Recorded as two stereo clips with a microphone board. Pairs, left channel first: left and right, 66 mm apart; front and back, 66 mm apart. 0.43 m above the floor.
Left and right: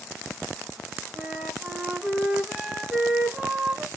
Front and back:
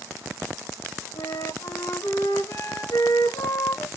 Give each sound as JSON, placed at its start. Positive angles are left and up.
{"t": 1.1, "sound": "a flute", "azimuth_deg": -10, "distance_m": 1.8}